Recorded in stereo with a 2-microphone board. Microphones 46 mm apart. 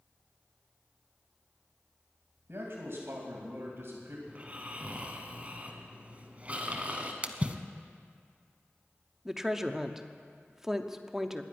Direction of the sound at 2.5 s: 65° right (ahead or behind).